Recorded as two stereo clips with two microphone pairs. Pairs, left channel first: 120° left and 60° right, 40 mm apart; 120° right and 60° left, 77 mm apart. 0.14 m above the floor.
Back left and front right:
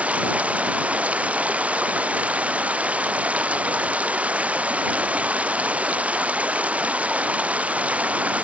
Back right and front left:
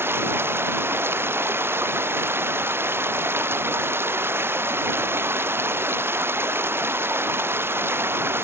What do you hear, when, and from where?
0.0 s running water: straight ahead